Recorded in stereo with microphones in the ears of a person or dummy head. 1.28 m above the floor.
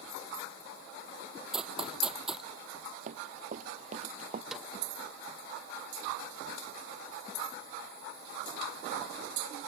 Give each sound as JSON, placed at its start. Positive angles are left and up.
{"t": 1.5, "sound": "running footsteps", "side_deg": -5}
{"t": 3.1, "sound": "running footsteps", "side_deg": -45}
{"t": 4.5, "sound": "a snare drum", "side_deg": -5}